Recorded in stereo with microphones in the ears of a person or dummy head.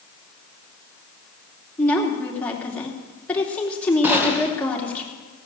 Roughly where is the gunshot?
Centre.